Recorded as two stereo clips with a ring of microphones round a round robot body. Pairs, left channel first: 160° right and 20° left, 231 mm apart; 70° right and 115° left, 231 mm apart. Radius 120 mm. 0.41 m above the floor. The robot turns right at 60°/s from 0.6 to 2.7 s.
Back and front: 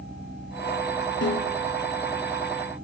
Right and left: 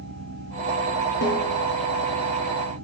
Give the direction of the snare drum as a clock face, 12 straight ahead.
4 o'clock.